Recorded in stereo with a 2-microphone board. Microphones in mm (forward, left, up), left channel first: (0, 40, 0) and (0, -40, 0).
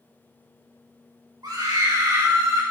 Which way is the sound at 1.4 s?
55° right (ahead or behind).